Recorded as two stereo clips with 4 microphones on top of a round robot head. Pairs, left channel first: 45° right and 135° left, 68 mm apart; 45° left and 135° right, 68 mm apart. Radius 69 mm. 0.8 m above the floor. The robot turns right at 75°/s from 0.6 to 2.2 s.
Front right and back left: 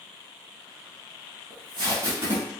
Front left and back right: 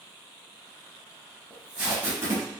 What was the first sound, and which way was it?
Tape being pulled, 125° left.